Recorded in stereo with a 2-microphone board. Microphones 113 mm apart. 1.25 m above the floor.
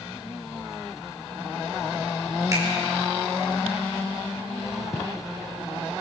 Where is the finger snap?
30° right (ahead or behind), 4.5 m.